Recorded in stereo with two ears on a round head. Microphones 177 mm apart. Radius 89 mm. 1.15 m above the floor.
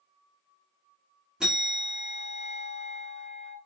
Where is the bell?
5° right (ahead or behind), 1.6 m.